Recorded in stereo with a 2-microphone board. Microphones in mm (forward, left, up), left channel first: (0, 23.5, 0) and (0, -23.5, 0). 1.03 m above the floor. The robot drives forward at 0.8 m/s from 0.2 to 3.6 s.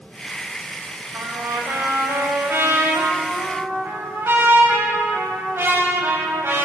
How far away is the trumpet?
About 6 m.